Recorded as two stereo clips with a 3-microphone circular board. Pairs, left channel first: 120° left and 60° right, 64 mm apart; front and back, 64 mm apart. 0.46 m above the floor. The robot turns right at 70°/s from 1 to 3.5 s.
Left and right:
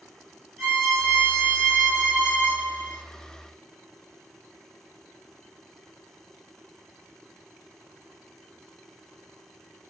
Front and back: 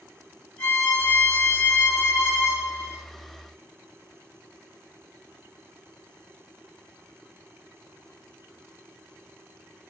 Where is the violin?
45° left, 1.3 m; by 3.0 s 175° right, 1.3 m.